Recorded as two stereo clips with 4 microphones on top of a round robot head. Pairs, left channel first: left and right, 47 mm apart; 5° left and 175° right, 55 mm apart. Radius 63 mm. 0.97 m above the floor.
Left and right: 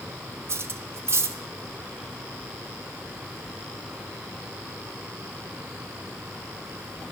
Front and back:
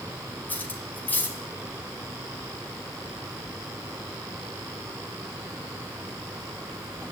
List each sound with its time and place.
0.5 s cutlery clinking: 60° right, 1.8 m